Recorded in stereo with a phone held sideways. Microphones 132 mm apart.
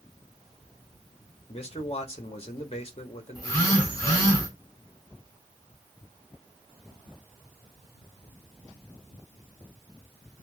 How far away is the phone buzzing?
About 3 m.